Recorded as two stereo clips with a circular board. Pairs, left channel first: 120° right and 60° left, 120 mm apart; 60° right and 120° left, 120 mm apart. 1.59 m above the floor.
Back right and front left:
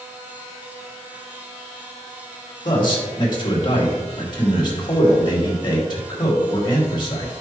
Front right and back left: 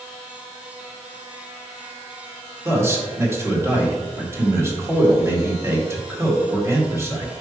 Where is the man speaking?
170° right, 2.5 m.